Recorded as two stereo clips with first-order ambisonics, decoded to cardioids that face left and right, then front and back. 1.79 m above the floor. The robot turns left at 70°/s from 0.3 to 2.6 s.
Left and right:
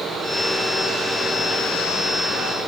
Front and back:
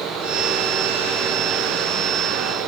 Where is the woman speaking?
No woman speaking in this recording.